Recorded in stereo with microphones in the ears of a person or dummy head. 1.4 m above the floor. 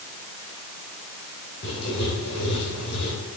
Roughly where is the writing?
Left.